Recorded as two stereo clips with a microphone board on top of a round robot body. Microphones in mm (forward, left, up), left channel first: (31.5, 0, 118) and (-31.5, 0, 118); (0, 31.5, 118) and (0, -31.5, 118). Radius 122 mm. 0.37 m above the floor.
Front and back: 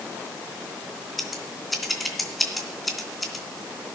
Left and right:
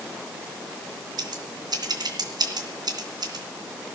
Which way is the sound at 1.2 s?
90° right.